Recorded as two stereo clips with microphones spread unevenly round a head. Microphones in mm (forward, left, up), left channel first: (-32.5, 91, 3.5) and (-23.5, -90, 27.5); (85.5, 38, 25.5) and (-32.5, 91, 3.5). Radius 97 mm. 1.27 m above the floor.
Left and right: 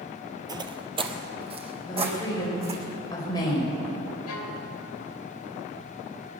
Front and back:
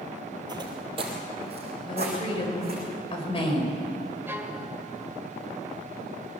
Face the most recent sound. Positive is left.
turn(degrees=80)